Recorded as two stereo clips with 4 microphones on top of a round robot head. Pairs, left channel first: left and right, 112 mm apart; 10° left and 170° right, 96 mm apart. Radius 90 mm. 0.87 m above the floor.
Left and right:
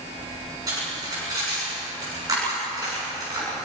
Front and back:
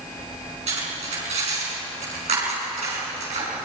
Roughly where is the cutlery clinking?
Behind right.